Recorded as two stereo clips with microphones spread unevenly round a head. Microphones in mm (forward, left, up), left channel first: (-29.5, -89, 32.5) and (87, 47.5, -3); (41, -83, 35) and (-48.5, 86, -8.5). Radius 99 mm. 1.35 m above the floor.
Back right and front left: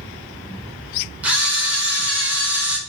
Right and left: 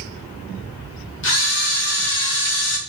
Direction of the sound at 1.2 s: 30° right.